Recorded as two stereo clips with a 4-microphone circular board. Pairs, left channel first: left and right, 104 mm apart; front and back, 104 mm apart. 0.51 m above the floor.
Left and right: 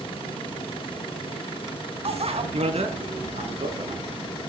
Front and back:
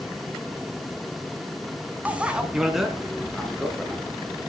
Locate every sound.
2.0 s a bicycle bell: 105° right, 2.5 m; by 4.3 s 80° right, 5.5 m